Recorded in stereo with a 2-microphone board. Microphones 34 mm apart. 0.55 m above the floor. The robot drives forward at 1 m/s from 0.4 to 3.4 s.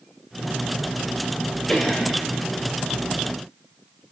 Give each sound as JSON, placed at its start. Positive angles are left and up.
{"t": 1.7, "sound": "a cough", "side_deg": 20, "distance_m": 2.0}